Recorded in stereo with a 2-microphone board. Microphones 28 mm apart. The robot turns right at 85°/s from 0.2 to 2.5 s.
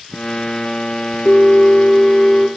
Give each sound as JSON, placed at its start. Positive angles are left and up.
{"t": 1.2, "sound": "a bell", "azimuth_deg": 85, "distance_m": 1.4}